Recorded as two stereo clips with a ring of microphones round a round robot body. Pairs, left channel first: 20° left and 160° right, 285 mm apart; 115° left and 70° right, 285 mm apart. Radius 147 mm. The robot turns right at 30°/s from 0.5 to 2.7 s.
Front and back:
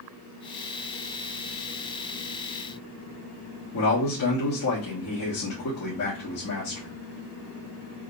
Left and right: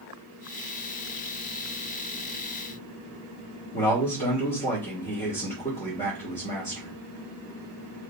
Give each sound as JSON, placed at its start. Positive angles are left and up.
{"t": 3.7, "sound": "a man speaking", "azimuth_deg": 50, "distance_m": 1.4}